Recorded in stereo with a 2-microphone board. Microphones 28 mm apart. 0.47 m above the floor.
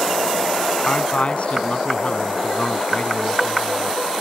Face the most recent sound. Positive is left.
turn(degrees=50)  # may be behind; listen again after turning